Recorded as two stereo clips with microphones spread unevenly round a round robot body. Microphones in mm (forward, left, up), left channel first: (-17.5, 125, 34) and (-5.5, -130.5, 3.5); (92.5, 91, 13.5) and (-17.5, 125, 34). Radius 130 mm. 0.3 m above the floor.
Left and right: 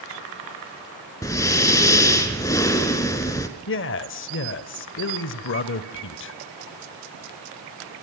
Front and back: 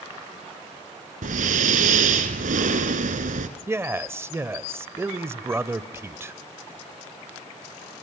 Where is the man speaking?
90° left, 1.3 m.